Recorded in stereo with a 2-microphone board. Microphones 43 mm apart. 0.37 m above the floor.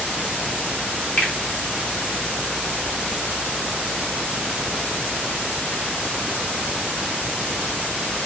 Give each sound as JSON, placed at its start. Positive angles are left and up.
{"t": 1.2, "sound": "a finger snap", "side_deg": 30, "distance_m": 1.0}